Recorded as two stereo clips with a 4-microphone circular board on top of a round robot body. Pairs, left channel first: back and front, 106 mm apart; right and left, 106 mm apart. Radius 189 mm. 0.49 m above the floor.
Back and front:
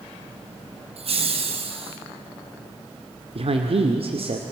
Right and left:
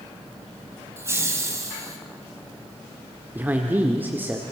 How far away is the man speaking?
About 2.0 m.